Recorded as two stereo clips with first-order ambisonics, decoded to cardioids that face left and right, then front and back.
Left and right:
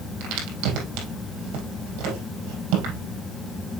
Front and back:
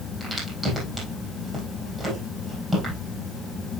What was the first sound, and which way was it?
A crack, 100° right.